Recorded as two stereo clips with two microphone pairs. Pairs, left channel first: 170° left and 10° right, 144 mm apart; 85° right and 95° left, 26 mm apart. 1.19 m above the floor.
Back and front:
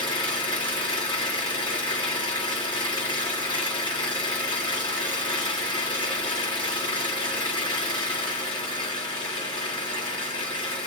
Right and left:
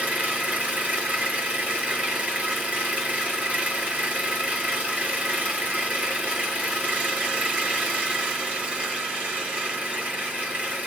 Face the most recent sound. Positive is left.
turn(degrees=115)